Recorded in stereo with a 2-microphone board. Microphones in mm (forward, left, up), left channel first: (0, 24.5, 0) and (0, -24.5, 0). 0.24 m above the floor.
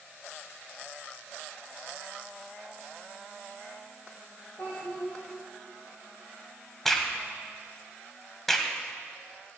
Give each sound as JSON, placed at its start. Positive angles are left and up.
{"t": 4.6, "sound": "a child speaking", "side_deg": 50, "distance_m": 4.0}
{"t": 6.8, "sound": "a crack", "side_deg": 5, "distance_m": 1.3}